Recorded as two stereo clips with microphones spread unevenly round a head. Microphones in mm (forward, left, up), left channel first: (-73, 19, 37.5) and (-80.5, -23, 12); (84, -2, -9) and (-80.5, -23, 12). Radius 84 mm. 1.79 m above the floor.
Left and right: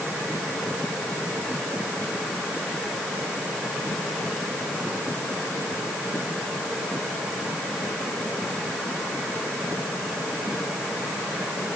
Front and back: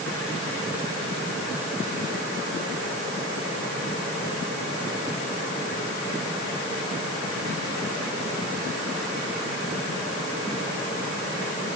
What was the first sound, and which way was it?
Only background noise.